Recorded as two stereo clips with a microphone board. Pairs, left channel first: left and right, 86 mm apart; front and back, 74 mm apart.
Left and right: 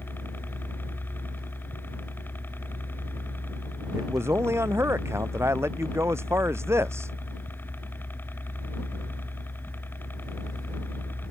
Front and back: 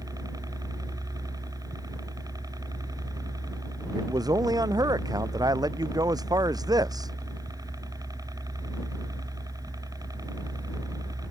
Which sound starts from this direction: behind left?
A helicopter, at 0.0 s.